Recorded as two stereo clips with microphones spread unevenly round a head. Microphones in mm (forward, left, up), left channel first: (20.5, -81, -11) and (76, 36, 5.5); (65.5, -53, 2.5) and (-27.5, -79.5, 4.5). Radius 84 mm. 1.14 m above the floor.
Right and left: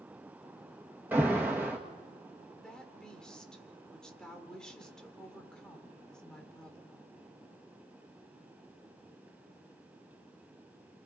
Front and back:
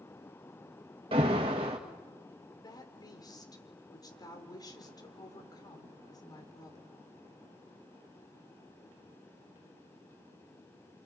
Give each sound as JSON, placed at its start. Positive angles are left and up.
{"t": 1.1, "sound": "an alarm", "azimuth_deg": 145, "distance_m": 1.9}
{"t": 2.6, "sound": "a woman speaking", "azimuth_deg": -30, "distance_m": 4.5}